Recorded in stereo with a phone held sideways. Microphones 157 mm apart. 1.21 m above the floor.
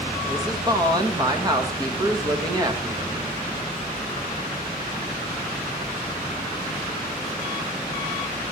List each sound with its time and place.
0.3 s a woman speaking: 25° right (ahead or behind), 1.8 m